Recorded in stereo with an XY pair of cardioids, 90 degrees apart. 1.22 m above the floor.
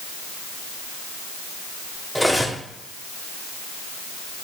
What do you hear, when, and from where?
2.1 s cutlery clinking: 5° right, 1.6 m